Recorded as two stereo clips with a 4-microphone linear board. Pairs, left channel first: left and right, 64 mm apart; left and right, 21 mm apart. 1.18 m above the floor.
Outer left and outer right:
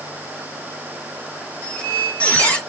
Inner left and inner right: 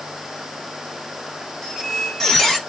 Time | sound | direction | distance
1.6 | a squeak | 25° left (ahead or behind) | 1.2 m